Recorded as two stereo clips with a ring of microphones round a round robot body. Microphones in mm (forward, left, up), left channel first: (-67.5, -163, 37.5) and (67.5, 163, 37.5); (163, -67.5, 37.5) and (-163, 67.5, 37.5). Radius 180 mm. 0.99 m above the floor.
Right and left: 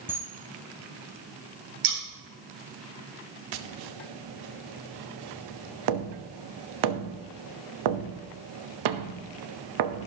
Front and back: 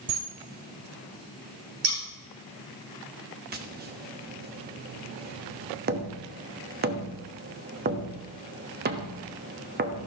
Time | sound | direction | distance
0.1 | a camera shutter | 150° left | 2 m
1.8 | scissors | 105° left | 3 m
3.5 | tapping | 95° left | 1.1 m